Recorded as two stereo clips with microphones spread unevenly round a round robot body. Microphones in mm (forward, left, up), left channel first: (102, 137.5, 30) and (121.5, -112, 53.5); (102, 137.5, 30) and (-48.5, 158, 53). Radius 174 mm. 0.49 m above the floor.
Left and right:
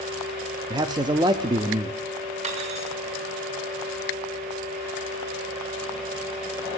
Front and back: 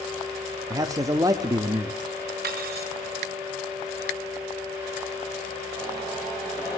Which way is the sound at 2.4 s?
155° right.